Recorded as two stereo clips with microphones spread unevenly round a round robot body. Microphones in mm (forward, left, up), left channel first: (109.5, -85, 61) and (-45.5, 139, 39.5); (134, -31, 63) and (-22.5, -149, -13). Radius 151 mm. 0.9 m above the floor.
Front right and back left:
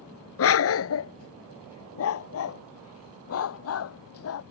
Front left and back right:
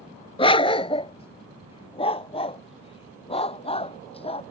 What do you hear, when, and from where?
0.4 s a dog barking: 20° right